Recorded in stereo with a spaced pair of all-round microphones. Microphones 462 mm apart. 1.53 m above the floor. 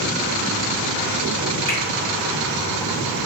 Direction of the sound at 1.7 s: 65° left (ahead or behind).